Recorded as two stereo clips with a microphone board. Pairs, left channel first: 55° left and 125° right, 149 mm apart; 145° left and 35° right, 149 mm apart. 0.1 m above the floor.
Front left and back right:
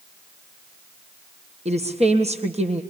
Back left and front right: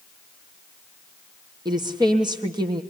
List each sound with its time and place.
1.6 s a woman speaking: 90° right, 3 m